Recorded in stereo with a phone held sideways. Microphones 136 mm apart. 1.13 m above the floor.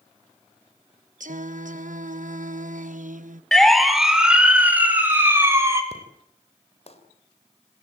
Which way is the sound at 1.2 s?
70° right (ahead or behind).